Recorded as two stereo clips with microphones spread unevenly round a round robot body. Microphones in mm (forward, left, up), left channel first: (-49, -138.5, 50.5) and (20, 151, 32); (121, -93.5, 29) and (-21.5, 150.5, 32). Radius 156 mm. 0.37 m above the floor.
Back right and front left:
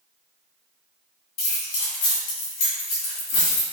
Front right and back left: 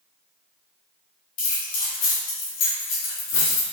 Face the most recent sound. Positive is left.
turn(degrees=-80)